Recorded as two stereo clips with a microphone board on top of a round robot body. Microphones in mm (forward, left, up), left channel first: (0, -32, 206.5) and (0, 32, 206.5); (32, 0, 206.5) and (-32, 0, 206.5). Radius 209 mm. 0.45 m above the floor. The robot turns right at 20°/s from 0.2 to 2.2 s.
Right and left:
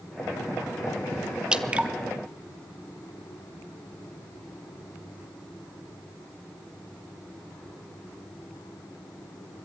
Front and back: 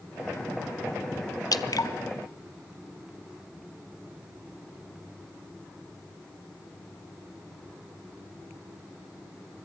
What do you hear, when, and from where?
1.5 s dripping: 15° left, 1.0 m; by 1.9 s 20° left, 1.0 m